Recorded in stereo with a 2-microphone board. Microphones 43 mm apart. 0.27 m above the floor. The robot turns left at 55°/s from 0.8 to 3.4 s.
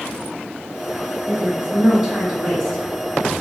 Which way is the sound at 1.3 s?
125° right.